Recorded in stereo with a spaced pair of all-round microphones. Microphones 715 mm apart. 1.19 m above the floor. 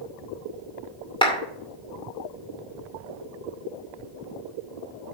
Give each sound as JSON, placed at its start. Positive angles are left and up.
{"t": 1.2, "sound": "a clap", "side_deg": 5, "distance_m": 2.5}